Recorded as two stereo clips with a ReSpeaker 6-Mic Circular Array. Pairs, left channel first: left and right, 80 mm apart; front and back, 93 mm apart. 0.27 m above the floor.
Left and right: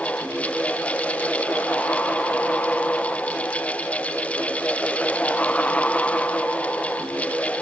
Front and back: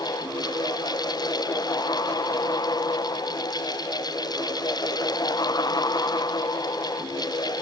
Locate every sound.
Only background noise.